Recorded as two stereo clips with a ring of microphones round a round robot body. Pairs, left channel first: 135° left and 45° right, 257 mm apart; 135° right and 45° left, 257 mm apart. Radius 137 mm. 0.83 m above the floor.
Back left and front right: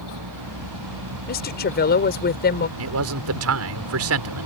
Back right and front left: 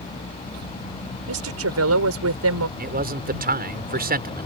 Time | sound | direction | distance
0.0 | a vehicle | 65° right | ?
1.3 | a woman speaking | 80° left | ?
2.8 | a man speaking | 10° right | ?